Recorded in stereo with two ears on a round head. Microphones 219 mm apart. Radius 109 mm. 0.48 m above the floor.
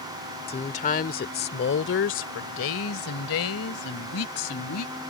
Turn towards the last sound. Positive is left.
turn(degrees=70)  # may be behind; listen again after turning